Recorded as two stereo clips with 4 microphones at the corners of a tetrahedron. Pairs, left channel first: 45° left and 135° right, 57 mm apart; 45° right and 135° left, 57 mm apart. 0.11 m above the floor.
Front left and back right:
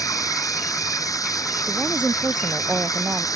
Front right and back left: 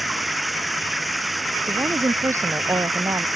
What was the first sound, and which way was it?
Running water, 45° left.